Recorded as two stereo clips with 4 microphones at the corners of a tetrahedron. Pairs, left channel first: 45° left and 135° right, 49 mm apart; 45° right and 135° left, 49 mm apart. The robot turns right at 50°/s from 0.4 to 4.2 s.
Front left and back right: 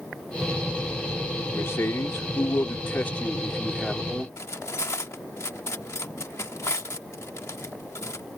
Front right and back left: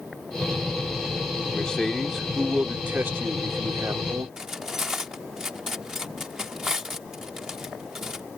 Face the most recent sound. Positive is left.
turn(degrees=50)